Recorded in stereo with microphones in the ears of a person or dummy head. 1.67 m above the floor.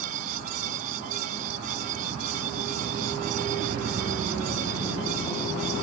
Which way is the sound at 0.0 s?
45° right (ahead or behind).